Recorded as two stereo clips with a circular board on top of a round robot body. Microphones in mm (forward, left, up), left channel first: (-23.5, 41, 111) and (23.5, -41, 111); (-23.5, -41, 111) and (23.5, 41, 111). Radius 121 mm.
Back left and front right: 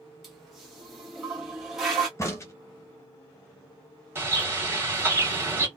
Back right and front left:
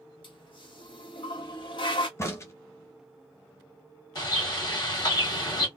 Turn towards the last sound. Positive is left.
turn(degrees=-115)